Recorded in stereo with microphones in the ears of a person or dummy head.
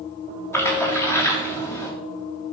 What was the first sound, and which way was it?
A splash, 15° left (ahead or behind).